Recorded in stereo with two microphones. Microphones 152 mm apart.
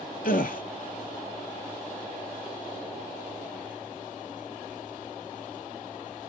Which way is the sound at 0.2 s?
65° left (ahead or behind).